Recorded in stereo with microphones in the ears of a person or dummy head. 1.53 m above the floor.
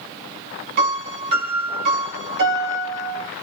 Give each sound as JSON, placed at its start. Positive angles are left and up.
{"t": 0.8, "sound": "a piano", "side_deg": -55, "distance_m": 1.2}